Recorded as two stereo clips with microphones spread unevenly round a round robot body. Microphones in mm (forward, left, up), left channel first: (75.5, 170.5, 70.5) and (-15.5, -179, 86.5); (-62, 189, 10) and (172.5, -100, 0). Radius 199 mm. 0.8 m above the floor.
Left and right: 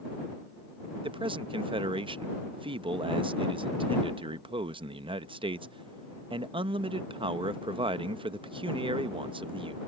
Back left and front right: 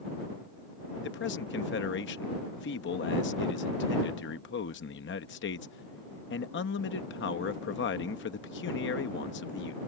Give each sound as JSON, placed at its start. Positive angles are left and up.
{"t": 1.0, "sound": "a man speaking", "azimuth_deg": 180}